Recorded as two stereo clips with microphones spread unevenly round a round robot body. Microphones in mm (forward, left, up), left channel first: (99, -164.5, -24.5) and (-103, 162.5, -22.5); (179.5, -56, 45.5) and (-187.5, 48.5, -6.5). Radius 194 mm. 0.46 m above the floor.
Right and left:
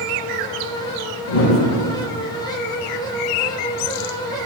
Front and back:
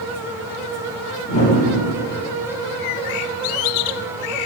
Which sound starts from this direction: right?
A whoosh, at 1.3 s.